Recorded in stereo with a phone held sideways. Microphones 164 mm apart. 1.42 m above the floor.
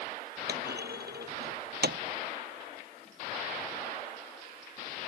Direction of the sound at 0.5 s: 80° right.